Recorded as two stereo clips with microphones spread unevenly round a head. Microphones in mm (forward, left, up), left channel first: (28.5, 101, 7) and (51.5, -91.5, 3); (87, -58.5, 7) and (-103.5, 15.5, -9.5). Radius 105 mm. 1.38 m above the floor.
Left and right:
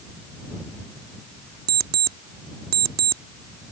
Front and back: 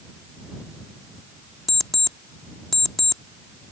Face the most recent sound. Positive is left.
turn(degrees=-105)